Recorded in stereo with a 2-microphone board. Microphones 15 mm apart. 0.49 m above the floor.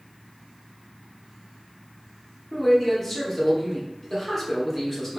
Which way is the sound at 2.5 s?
5° left (ahead or behind).